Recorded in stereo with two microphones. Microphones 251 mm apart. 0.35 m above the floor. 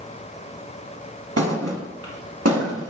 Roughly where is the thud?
Right.